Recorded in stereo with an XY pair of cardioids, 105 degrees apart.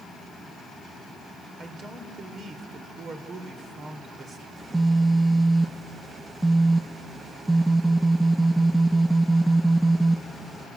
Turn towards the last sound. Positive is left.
turn(degrees=-15)